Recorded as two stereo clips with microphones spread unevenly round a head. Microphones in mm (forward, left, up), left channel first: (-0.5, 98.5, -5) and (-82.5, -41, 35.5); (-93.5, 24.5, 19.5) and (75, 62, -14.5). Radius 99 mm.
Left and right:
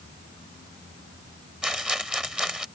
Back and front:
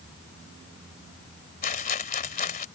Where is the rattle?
155° left.